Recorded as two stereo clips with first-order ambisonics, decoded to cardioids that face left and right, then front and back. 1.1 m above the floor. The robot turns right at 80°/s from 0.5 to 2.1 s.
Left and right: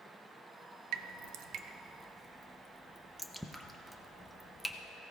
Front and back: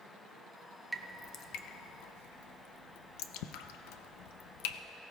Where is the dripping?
95° right, 0.5 m; by 4.8 s straight ahead, 0.5 m.